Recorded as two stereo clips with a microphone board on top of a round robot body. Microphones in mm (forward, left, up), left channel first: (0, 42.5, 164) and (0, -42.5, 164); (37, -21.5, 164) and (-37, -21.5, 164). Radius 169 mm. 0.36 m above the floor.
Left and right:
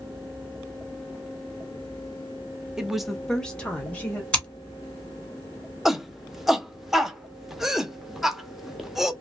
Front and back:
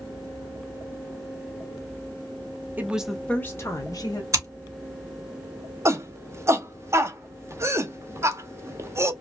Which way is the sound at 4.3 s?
160° left.